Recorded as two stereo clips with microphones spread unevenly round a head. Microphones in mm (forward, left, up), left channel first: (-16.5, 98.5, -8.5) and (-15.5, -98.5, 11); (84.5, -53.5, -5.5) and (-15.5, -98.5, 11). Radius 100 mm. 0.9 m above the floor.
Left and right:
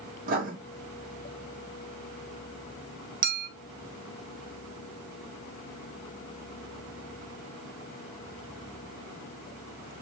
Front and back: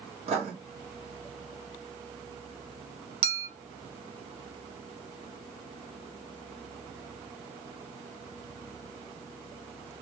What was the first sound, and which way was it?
Writing, 135° right.